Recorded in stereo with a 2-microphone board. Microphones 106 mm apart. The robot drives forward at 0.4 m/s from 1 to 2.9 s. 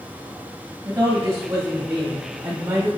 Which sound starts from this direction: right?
A woman speaking, at 0.8 s.